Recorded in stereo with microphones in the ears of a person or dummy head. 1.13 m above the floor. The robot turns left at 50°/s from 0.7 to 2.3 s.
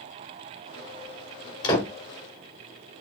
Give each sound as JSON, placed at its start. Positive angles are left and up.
{"t": 1.6, "sound": "a door slam", "side_deg": 25, "distance_m": 2.5}